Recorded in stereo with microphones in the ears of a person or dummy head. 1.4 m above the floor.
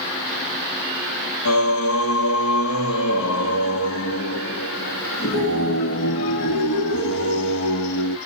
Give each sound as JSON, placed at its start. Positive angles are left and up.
{"t": 1.4, "sound": "singing", "side_deg": 75, "distance_m": 1.5}